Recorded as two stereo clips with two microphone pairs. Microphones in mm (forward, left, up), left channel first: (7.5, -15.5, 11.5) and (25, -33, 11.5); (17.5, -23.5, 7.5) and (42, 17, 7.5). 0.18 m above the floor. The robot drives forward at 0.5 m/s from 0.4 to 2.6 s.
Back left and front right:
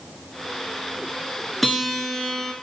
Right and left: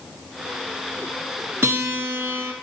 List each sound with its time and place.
1.6 s a guitar: 50° left, 1.1 m; by 2.5 s 75° left, 0.9 m